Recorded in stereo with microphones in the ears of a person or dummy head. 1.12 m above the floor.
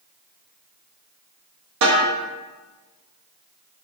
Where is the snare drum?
55° right (ahead or behind), 0.7 m.